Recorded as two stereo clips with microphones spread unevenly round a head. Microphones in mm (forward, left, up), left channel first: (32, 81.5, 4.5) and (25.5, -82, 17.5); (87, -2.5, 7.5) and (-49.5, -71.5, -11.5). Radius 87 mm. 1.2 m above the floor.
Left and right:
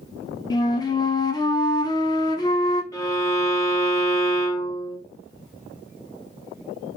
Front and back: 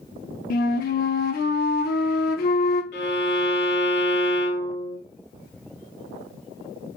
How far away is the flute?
About 0.7 m.